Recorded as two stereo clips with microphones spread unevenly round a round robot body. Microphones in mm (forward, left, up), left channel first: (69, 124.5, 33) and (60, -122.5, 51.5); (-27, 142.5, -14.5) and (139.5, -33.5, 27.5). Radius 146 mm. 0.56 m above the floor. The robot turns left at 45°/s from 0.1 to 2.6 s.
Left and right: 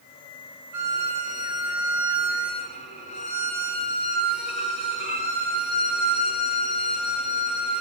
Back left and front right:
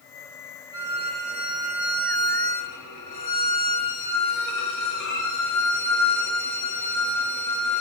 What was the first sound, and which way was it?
A violin, 120° right.